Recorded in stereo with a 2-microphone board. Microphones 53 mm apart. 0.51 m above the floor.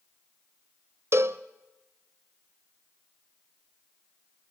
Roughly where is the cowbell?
Right.